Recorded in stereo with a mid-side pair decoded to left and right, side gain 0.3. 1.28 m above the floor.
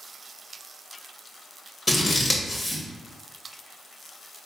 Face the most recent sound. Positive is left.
turn(degrees=35)